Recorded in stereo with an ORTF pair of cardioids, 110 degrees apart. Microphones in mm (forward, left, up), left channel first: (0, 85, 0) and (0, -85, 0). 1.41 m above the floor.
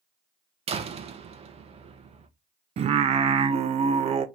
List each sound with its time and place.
0.7 s a door slam: 40° right, 0.7 m
2.8 s singing: 40° right, 0.5 m